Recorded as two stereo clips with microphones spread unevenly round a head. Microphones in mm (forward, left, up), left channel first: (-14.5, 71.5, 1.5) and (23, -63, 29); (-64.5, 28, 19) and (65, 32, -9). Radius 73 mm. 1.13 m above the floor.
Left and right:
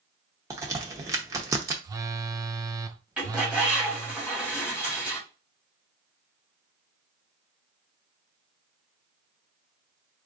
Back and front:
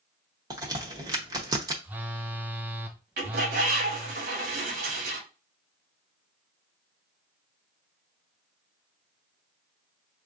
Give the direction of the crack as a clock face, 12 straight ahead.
2 o'clock.